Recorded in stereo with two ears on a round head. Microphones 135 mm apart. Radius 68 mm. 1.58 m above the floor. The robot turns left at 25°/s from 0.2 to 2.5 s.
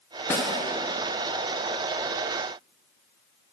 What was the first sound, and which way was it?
A snare drum, 15° left (ahead or behind).